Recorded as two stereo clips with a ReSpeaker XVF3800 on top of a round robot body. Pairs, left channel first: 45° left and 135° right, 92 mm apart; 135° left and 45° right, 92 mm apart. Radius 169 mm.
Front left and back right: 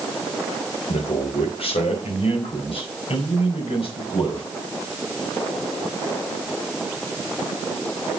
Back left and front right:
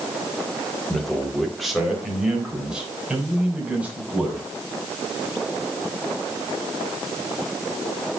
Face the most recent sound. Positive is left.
turn(degrees=30)